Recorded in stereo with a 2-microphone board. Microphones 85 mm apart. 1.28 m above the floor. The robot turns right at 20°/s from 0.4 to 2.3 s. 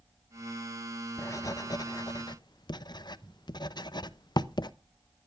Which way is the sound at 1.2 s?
35° left (ahead or behind).